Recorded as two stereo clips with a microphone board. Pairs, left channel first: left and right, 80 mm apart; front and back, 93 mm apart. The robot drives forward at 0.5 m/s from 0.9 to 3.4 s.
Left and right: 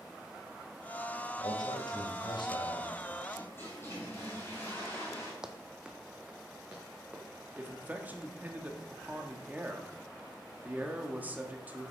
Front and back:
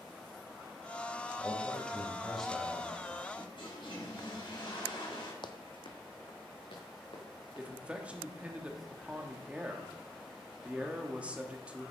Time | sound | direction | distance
1.4 | a man speaking | 75° left | 2.5 m
3.4 | a toilet flushing | 30° left | 3.5 m
5.4 | running footsteps | 10° right | 1.0 m
7.6 | a man speaking | 125° right | 1.2 m